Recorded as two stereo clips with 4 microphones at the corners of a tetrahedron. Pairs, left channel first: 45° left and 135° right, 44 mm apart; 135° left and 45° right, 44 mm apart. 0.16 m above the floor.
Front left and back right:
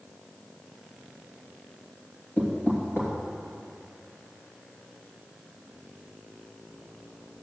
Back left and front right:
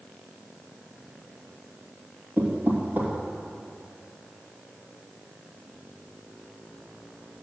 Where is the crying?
I don't hear crying.